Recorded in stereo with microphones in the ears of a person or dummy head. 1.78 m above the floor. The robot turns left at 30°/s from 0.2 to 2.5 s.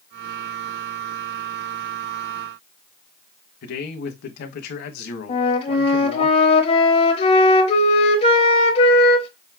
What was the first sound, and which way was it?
A man speaking, 60° left (ahead or behind).